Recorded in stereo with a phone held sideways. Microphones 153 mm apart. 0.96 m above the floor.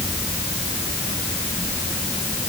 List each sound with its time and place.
Only background noise.